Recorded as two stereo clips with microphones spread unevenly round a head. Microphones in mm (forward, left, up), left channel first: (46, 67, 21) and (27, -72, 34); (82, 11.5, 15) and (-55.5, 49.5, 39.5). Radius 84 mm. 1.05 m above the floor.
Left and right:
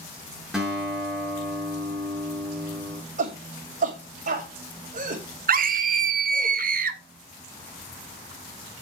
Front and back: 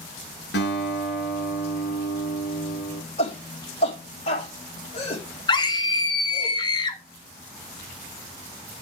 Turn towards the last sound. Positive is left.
turn(degrees=-75)